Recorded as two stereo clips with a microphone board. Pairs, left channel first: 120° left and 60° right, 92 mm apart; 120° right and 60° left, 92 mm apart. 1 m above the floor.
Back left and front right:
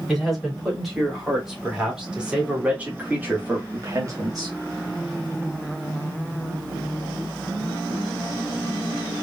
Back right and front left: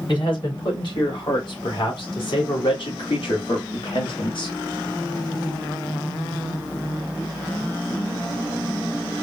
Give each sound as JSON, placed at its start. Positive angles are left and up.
{"t": 0.1, "sound": "a man speaking", "azimuth_deg": -150, "distance_m": 3.0}